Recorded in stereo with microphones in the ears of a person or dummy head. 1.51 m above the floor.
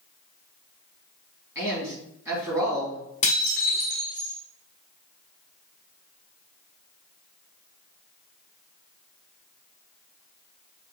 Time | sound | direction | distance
1.6 | a man speaking | 15° right (ahead or behind) | 2.5 m
3.2 | dishes clattering | 35° left (ahead or behind) | 0.8 m